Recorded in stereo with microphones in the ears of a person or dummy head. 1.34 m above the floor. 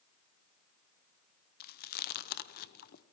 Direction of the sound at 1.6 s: 50° left (ahead or behind).